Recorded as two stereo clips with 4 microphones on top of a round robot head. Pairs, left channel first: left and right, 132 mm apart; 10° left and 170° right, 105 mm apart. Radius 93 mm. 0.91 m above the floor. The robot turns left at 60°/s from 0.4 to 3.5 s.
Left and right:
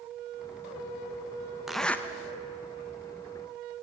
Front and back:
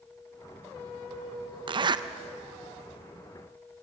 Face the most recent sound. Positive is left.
turn(degrees=75)